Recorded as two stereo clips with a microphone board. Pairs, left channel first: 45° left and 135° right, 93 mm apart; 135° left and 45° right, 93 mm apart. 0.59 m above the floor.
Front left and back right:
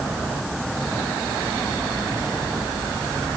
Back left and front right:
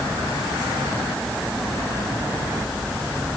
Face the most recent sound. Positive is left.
No sound to turn to.